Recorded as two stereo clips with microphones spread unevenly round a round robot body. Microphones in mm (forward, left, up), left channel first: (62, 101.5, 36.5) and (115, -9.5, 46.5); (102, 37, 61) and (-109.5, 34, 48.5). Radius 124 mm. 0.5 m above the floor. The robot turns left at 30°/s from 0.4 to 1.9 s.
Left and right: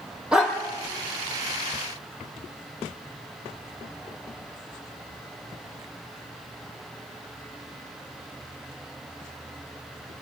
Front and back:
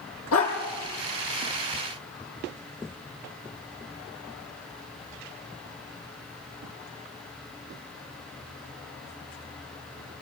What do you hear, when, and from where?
0.3 s a dog barking: 20° left, 6 m; by 0.6 s 10° left, 6 m